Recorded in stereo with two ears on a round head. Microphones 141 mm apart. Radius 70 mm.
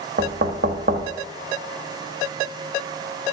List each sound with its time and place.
0.2 s knocking: 55° right (ahead or behind), 0.9 m